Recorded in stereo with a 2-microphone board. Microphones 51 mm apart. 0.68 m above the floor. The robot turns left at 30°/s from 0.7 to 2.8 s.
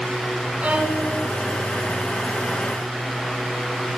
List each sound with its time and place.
0.6 s a violin: 20° right (ahead or behind), 3 m; by 1.1 s 10° right (ahead or behind), 3 m